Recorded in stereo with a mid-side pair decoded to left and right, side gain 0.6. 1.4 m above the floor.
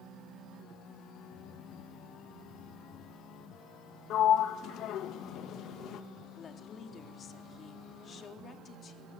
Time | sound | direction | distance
4.1 | a sliding door | 55° left | 1.8 m
6.3 | a woman speaking | 40° left | 4 m